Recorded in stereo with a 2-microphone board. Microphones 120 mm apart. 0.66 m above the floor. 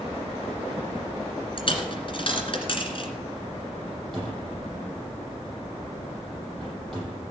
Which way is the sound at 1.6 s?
45° left (ahead or behind).